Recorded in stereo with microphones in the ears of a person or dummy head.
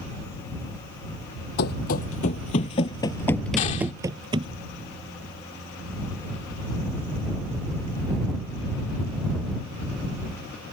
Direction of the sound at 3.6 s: 40° left (ahead or behind).